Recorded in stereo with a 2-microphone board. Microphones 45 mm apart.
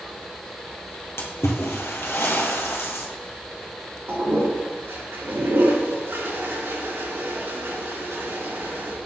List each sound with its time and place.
1.2 s a splash: 70° left (ahead or behind), 2.5 m
4.1 s a toilet flushing: 65° right (ahead or behind), 3 m